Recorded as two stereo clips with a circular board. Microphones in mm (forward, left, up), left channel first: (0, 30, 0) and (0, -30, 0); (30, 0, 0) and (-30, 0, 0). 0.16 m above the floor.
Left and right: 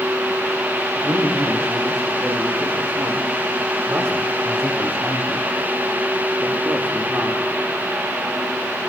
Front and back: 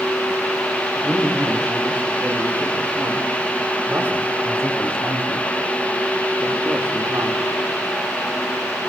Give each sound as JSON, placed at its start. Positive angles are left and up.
{"t": 0.9, "sound": "a man speaking", "azimuth_deg": -110, "distance_m": 7.5}